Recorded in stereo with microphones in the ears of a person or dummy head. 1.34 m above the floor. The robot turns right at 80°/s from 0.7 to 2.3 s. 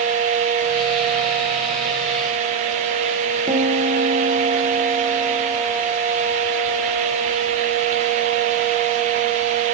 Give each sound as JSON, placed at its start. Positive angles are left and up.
{"t": 3.5, "sound": "a piano", "side_deg": -25, "distance_m": 1.7}